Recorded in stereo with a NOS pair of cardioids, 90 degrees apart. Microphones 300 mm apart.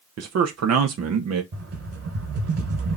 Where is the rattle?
50° right, 3 m.